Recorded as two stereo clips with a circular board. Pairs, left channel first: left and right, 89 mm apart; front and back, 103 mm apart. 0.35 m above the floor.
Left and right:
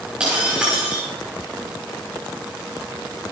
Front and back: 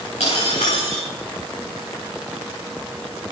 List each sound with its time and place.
0.2 s breaking glass: 15° right, 6.5 m